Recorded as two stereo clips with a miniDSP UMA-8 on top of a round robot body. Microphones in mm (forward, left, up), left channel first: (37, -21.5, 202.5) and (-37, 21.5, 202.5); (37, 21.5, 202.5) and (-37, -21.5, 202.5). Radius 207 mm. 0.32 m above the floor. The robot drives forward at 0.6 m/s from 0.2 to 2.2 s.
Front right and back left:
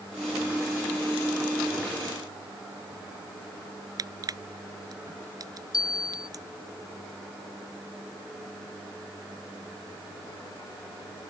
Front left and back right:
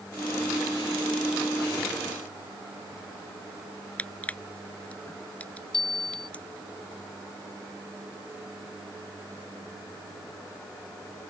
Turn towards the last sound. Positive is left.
turn(degrees=10)